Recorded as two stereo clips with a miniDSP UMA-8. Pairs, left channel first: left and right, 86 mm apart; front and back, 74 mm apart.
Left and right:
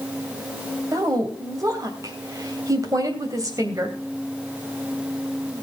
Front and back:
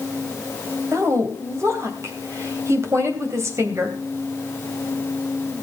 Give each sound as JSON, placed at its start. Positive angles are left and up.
{"t": 0.9, "sound": "a woman speaking", "azimuth_deg": -135, "distance_m": 3.0}